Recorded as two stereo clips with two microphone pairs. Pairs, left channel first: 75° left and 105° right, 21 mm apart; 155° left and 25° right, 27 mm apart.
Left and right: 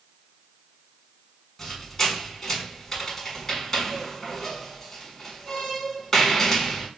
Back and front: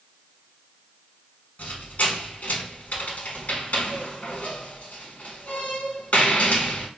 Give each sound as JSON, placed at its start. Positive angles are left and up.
{"t": 1.6, "sound": "a squeak", "azimuth_deg": 140, "distance_m": 0.8}